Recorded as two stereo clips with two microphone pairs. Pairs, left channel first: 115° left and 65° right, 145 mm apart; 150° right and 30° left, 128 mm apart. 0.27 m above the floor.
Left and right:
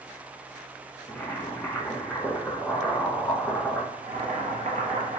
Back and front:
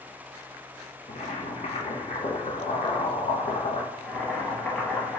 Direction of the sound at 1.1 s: 170° right.